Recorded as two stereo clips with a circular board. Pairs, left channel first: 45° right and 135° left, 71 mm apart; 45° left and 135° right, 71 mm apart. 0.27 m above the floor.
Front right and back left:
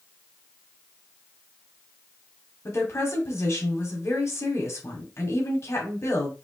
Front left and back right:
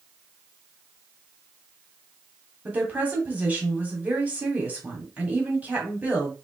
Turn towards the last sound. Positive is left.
turn(degrees=-75)